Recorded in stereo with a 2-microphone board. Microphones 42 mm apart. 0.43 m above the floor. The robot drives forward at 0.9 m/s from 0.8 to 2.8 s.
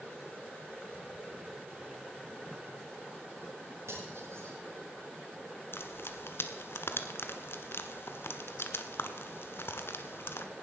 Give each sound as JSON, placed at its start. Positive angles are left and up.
{"t": 3.9, "sound": "cutlery clinking", "side_deg": -85, "distance_m": 7.0}
{"t": 5.7, "sound": "frying", "side_deg": 65, "distance_m": 1.3}